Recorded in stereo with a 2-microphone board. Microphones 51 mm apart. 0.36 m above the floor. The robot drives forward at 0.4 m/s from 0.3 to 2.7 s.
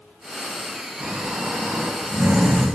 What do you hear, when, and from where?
1.0 s snoring: 50° right (ahead or behind), 2.0 m; by 2.7 s 60° right (ahead or behind), 1.7 m